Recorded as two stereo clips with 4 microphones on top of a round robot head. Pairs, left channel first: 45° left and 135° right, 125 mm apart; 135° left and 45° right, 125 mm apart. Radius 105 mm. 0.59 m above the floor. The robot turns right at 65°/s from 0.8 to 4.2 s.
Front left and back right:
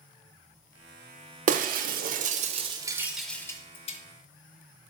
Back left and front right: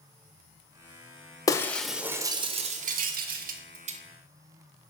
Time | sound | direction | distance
1.5 | breaking glass | 160° right | 0.5 m